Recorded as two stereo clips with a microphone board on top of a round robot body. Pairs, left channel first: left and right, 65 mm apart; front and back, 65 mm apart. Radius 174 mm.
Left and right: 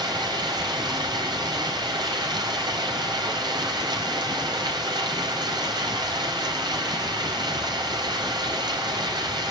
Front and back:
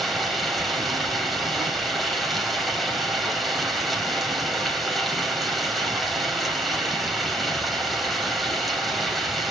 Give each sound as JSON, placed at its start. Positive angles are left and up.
{"t": 0.0, "sound": "running water", "azimuth_deg": -90, "distance_m": 5.0}